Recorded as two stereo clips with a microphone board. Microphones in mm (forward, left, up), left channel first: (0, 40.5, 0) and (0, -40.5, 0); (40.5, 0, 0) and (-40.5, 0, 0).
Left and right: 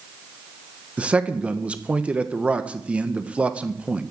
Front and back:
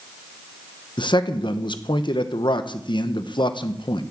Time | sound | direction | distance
1.0 | a man speaking | 15° right | 1.1 m